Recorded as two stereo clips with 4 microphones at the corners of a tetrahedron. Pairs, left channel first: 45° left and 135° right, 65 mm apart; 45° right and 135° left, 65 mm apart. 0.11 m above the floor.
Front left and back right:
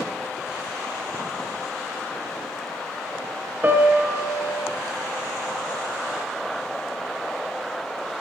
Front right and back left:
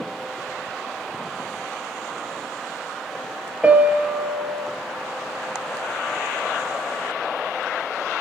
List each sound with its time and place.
3.6 s a piano: 175° right, 1.4 m